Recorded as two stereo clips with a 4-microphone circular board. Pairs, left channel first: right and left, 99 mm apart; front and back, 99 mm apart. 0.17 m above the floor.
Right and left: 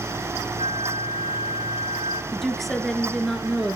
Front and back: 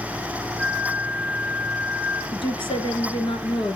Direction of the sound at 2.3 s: 5° right.